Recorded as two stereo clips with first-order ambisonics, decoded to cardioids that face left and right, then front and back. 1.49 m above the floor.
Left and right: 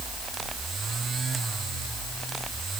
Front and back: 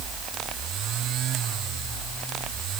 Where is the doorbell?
I don't hear a doorbell.